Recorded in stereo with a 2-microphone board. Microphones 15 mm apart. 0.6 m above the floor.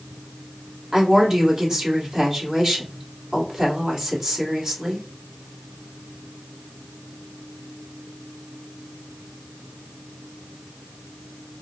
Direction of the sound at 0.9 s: 40° right (ahead or behind).